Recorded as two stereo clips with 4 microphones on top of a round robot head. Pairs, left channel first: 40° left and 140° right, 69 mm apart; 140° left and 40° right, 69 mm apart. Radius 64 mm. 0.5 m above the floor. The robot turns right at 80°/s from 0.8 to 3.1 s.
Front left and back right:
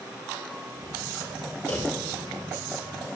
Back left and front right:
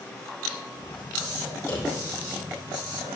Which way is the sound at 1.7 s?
100° left.